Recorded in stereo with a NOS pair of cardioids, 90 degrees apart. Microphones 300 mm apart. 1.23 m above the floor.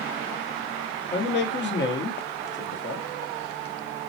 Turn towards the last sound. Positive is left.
turn(degrees=40)